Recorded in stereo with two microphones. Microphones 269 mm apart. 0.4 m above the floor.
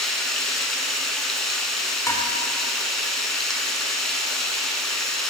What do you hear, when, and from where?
0.0 s running water: centre (ahead or behind), 0.8 m
2.1 s dishes clattering: 10° left (ahead or behind), 0.6 m